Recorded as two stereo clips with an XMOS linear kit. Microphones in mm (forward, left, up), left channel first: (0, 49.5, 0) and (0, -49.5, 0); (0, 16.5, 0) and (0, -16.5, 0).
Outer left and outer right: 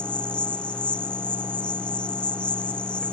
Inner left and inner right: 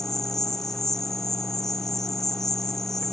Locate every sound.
0.0 s an insect: 10° left (ahead or behind)